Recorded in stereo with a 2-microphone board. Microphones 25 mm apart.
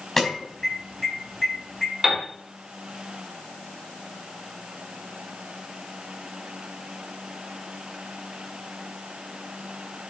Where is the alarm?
5° left (ahead or behind), 5 m.